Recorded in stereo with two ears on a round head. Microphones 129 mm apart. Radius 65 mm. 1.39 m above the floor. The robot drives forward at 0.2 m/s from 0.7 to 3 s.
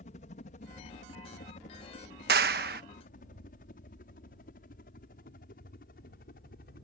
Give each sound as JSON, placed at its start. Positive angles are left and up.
{"t": 0.0, "sound": "a helicopter", "side_deg": 55}
{"t": 2.3, "sound": "a clap", "side_deg": -75}